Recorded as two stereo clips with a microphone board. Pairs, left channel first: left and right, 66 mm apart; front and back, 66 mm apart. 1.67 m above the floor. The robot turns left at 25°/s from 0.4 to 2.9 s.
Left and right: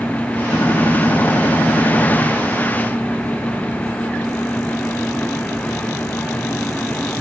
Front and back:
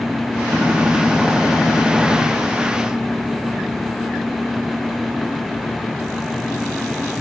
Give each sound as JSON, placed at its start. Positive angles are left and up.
{"t": 0.5, "sound": "a gunshot", "azimuth_deg": 120, "distance_m": 1.7}